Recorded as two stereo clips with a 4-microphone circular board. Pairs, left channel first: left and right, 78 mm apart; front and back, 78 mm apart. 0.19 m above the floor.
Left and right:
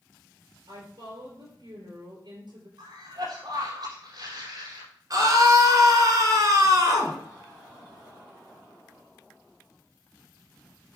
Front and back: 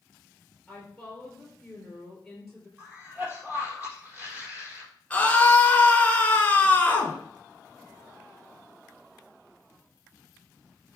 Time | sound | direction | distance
0.7 | a woman speaking | 85° right | 4 m
2.8 | a cough | 110° right | 5.5 m
5.1 | a scream | 65° right | 2.5 m